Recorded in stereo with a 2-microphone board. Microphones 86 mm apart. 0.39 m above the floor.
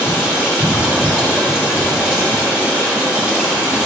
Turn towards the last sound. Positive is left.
turn(degrees=-15)  # may be behind; listen again after turning